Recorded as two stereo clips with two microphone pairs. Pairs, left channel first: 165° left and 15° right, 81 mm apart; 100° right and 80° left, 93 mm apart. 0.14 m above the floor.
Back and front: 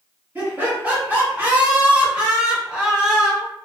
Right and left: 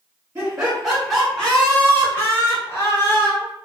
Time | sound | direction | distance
0.3 | laughter | 10° left | 1.5 m